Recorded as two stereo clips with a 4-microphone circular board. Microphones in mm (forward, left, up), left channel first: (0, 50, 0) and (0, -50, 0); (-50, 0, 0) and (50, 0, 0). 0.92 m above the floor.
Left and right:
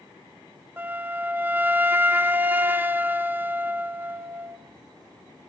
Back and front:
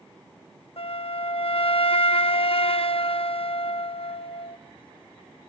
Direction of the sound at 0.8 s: 160° right.